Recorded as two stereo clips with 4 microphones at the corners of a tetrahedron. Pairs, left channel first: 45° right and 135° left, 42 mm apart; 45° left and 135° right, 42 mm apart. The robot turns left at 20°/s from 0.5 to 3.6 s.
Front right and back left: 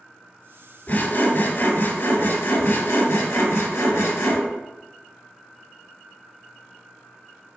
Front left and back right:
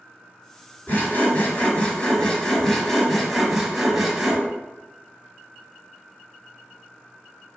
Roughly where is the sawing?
Ahead.